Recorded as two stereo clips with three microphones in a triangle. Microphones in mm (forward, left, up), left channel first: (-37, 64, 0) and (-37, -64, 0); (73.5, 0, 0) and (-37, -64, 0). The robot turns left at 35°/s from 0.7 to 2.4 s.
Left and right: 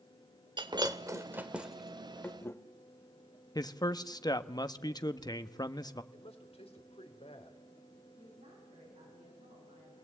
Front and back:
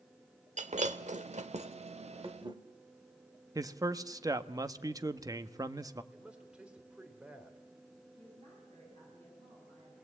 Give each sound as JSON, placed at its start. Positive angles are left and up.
{"t": 0.6, "sound": "breaking glass", "azimuth_deg": -140, "distance_m": 1.2}
{"t": 3.5, "sound": "a man speaking", "azimuth_deg": 150, "distance_m": 1.0}
{"t": 6.1, "sound": "a man speaking", "azimuth_deg": 130, "distance_m": 3.0}
{"t": 8.2, "sound": "a woman speaking", "azimuth_deg": -110, "distance_m": 9.0}